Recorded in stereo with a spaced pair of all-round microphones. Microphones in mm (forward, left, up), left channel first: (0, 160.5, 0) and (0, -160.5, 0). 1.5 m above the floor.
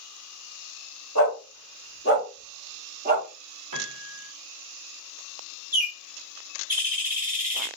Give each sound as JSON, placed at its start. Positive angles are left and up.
{"t": 1.1, "sound": "a dog barking", "side_deg": 65, "distance_m": 2.5}
{"t": 3.7, "sound": "a piano", "side_deg": -80, "distance_m": 0.9}
{"t": 5.7, "sound": "a bird", "side_deg": -25, "distance_m": 1.5}